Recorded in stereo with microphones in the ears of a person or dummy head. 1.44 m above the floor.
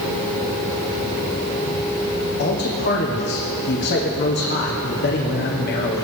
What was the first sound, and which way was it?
A man speaking, 50° left (ahead or behind).